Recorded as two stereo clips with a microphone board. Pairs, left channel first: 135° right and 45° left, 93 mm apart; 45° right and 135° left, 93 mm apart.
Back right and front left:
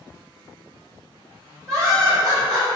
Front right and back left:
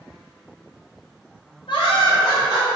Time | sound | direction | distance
1.7 | laughter | 10° right | 1.6 m